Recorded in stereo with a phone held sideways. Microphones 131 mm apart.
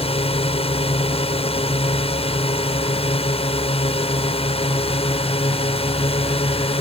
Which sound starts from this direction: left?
A drone, at 0.0 s.